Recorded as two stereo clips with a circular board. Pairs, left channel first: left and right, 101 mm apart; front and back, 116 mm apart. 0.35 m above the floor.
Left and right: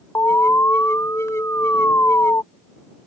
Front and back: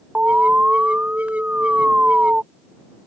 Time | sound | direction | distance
0.1 | an alarm | 115° left | ?